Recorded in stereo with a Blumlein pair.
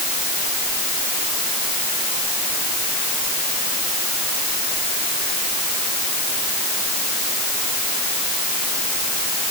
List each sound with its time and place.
Only background noise.